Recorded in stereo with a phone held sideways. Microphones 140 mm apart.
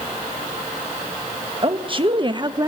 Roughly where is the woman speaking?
Right.